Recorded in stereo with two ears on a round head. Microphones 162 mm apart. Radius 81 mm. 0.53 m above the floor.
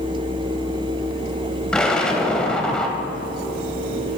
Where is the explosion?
5° left (ahead or behind), 1.1 m.